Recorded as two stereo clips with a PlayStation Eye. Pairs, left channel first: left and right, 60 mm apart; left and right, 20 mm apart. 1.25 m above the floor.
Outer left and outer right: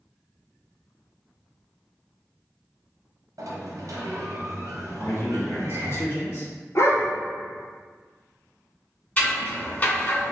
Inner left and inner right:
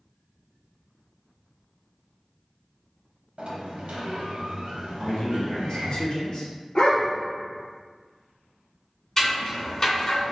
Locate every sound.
3.4 s a sliding door: 80° right, 0.9 m
5.0 s a man speaking: 50° left (ahead or behind), 1.6 m
6.8 s a dog barking: 50° left (ahead or behind), 1.1 m
9.2 s scissors: 25° left (ahead or behind), 1.9 m